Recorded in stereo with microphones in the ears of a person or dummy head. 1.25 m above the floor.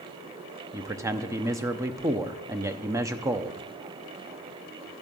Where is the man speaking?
20° right (ahead or behind), 0.7 m.